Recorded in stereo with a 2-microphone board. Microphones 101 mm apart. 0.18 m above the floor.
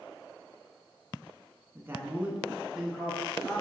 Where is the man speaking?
25° right (ahead or behind), 1.4 m; by 3.6 s 10° left (ahead or behind), 2.5 m.